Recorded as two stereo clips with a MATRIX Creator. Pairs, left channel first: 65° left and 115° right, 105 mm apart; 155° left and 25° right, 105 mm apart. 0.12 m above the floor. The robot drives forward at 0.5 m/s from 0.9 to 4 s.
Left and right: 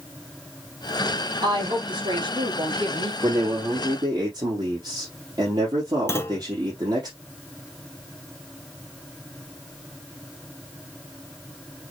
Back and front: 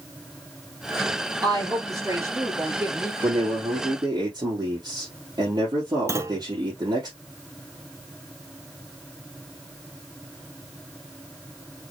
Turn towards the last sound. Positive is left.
turn(degrees=20)